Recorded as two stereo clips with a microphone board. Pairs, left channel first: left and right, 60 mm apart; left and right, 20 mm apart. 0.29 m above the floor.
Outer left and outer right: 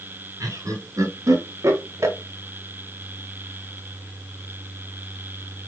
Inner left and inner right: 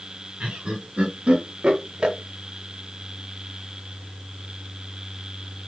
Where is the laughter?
70° right (ahead or behind), 3 m; by 2.2 s 55° right (ahead or behind), 1.7 m.